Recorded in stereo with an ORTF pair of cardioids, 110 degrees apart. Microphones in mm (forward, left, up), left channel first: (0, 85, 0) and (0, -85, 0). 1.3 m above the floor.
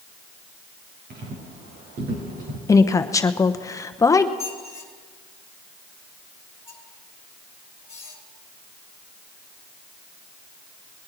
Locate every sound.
1.1 s footsteps: 60° right, 4.5 m; by 2.6 s 65° right, 5.5 m
2.7 s a woman speaking: 20° left, 1.0 m
4.4 s a squeak: 15° left, 3 m